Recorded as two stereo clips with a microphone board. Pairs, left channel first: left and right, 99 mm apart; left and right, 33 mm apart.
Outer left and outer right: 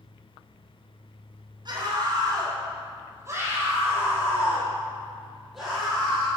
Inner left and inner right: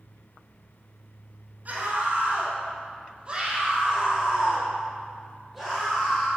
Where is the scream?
45° right (ahead or behind), 3 m; by 6.3 s 5° left (ahead or behind), 3.5 m.